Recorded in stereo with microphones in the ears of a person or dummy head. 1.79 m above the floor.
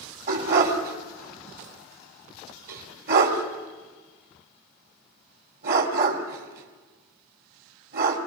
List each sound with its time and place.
0.3 s a dog barking: 50° right (ahead or behind), 2.5 m